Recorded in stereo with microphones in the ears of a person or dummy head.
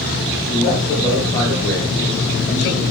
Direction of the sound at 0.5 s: 40° left (ahead or behind).